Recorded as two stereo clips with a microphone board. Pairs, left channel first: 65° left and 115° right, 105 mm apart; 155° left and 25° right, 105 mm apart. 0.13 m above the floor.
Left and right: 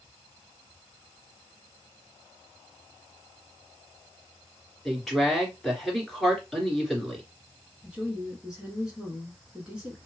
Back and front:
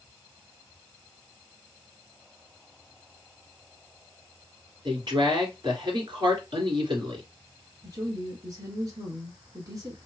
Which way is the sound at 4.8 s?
20° right.